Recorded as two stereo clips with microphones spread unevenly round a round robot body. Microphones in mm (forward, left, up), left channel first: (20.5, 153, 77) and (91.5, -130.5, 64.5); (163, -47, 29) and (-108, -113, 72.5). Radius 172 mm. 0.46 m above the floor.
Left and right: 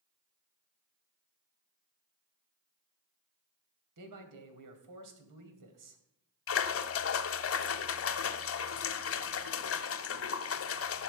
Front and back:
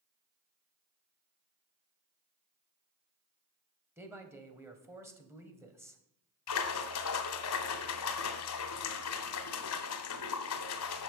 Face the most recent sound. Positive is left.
turn(degrees=60)